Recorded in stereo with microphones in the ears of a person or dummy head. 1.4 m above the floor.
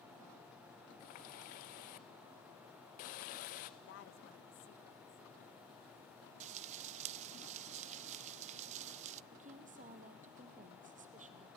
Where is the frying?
40° right (ahead or behind), 0.5 m.